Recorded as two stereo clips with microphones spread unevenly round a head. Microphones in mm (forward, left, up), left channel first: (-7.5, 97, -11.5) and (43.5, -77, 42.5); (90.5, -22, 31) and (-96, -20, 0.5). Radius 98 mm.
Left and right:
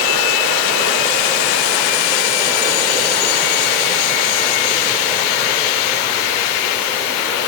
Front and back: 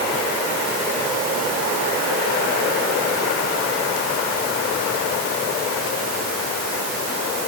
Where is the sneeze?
I don't hear a sneeze.